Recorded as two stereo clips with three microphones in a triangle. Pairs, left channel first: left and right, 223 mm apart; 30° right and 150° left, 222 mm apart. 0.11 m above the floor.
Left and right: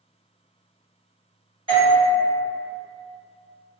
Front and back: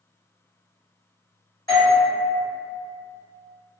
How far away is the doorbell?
About 1.8 m.